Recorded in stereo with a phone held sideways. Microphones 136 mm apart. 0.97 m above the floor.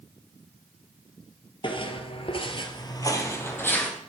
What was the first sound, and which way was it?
Footsteps, 40° left (ahead or behind).